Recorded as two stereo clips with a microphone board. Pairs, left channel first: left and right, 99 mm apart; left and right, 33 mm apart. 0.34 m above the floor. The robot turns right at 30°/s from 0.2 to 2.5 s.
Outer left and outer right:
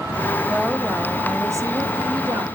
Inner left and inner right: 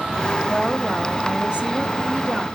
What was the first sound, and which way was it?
A woman speaking, 170° right.